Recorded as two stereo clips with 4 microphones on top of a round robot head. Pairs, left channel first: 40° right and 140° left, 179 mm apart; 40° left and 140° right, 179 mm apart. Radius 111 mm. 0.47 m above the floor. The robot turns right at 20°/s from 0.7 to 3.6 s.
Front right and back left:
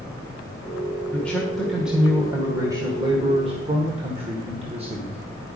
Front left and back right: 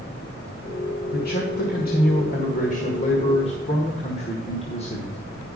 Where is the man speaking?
40° left, 1.7 m; by 5.2 s 90° left, 1.7 m.